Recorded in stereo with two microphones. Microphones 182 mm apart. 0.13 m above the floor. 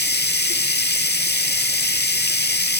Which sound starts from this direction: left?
Running water, at 0.0 s.